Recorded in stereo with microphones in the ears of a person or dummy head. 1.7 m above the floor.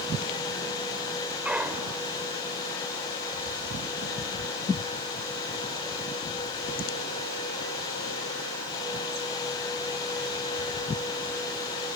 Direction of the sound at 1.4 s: 5° right (ahead or behind).